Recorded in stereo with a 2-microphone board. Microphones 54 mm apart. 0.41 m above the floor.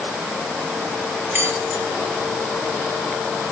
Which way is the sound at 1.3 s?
40° right (ahead or behind).